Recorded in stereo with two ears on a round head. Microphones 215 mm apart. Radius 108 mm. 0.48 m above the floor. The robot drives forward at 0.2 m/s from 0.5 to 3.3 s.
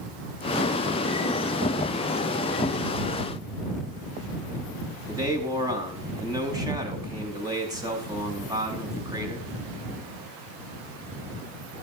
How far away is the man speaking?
About 5 m.